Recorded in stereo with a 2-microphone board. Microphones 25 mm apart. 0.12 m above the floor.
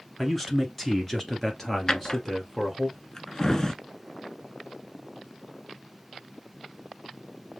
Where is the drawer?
30° left (ahead or behind), 0.5 m.